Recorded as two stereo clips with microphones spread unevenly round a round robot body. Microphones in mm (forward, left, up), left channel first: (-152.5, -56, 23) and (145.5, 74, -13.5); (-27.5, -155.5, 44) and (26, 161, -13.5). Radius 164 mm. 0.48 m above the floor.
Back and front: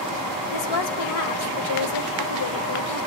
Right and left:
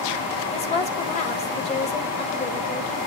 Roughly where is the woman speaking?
Behind.